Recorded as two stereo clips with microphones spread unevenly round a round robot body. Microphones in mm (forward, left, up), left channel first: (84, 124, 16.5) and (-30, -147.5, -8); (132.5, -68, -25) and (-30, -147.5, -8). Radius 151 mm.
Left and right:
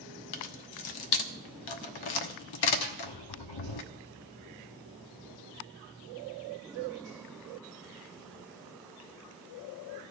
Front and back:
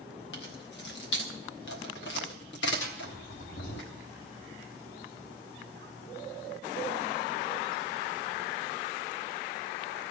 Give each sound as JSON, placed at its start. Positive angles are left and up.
{"t": 0.3, "sound": "keys jangling", "azimuth_deg": 75, "distance_m": 1.1}
{"t": 2.8, "sound": "a snare drum", "azimuth_deg": 55, "distance_m": 1.8}